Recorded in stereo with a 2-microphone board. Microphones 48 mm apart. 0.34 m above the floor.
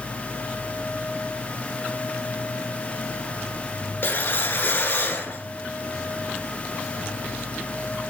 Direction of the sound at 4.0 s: 45° left (ahead or behind).